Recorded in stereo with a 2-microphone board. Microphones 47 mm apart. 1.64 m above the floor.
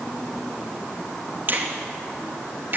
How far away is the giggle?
No giggle in this recording.